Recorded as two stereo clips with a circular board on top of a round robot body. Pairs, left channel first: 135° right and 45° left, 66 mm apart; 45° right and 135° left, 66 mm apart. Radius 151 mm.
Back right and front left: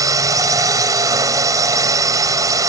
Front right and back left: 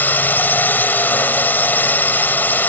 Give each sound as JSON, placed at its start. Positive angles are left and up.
{"t": 0.0, "sound": "a drone", "azimuth_deg": 20}